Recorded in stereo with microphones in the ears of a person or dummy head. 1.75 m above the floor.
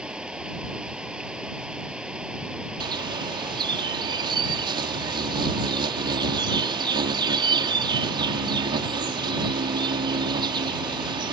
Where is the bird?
20° right (ahead or behind).